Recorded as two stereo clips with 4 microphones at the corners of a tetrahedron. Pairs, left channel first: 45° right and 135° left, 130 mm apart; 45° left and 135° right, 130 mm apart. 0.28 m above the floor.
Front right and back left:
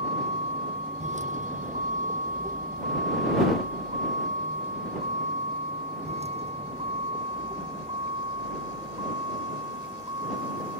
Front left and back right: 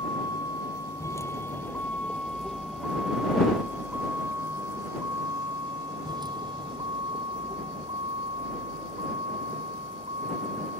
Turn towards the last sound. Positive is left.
turn(degrees=-170)